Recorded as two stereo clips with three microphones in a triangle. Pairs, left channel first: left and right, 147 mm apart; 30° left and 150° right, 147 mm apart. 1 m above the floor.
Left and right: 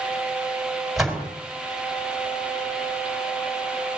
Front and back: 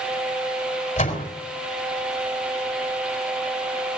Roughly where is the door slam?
Ahead.